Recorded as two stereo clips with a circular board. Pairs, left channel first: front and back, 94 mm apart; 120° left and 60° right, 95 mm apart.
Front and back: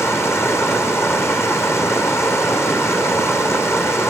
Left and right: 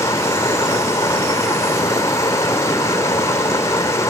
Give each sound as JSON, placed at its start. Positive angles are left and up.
{"t": 0.0, "sound": "running water", "azimuth_deg": 60, "distance_m": 2.5}